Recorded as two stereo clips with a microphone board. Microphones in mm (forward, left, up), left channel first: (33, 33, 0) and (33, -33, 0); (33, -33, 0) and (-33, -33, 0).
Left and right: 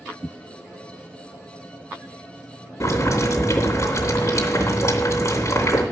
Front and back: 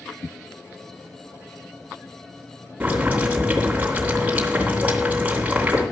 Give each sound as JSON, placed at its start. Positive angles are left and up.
{"t": 2.8, "sound": "boiling", "azimuth_deg": 115, "distance_m": 2.5}